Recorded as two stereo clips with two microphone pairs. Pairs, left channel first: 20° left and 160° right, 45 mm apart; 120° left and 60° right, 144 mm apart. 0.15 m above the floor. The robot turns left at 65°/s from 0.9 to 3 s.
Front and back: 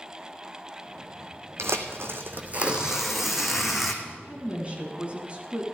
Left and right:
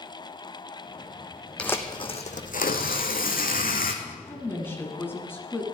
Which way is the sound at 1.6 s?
155° right.